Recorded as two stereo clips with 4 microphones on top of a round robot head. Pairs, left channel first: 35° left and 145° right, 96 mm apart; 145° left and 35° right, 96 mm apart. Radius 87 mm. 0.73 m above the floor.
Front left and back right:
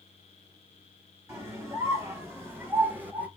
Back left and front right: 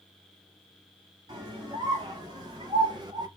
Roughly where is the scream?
Right.